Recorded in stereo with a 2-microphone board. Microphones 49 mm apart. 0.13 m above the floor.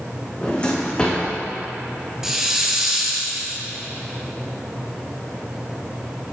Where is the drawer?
25° left (ahead or behind), 2.0 m.